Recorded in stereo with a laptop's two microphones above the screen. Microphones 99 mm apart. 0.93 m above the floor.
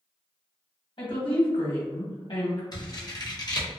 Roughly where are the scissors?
Left.